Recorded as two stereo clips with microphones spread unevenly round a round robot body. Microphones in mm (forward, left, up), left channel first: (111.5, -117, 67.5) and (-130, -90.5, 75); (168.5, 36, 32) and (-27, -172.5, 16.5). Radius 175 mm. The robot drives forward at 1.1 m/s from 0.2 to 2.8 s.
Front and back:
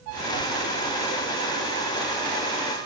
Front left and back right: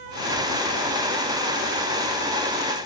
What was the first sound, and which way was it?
Only background noise.